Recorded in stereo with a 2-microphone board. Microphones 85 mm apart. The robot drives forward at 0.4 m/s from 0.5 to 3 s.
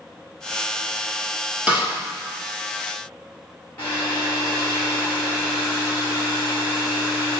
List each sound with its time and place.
1.7 s a snare drum: 15° right (ahead or behind), 2.5 m
3.8 s a hair dryer: 30° left (ahead or behind), 2.5 m